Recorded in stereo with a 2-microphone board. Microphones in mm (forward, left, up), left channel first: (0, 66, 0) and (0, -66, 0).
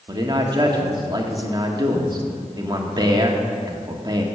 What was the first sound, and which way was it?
A man speaking, 35° right (ahead or behind).